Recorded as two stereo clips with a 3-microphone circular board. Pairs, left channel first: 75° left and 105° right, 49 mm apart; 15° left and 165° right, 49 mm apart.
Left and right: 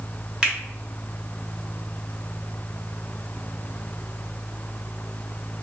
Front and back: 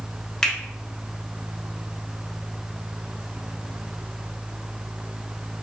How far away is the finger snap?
About 1.1 m.